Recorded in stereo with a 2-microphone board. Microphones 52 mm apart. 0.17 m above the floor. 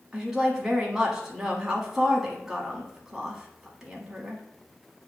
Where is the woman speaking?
10° right (ahead or behind), 1.0 m.